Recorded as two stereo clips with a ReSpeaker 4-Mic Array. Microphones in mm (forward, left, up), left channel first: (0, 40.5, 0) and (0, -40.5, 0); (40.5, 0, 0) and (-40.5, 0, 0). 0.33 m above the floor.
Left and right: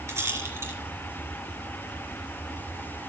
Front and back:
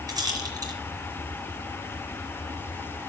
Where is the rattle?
145° right, 4 m.